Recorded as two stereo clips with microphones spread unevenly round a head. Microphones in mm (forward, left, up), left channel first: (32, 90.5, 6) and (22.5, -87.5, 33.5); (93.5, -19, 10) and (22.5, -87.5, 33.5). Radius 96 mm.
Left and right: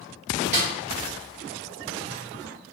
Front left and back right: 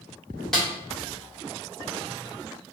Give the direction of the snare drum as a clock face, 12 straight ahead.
2 o'clock.